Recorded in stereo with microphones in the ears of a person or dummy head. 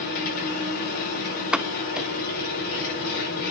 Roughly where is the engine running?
Left.